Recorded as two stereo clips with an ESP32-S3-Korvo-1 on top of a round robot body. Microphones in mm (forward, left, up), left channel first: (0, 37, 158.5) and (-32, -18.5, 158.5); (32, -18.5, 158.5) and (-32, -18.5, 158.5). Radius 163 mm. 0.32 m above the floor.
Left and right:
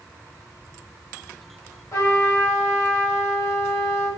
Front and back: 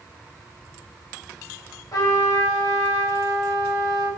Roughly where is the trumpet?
Ahead left.